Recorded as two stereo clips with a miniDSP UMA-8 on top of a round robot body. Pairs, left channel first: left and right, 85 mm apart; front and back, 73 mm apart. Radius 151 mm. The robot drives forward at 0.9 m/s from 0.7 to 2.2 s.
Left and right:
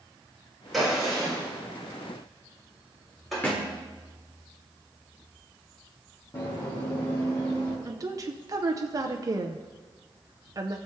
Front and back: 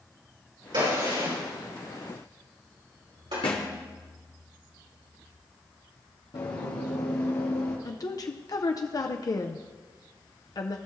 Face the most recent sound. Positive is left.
turn(degrees=-40)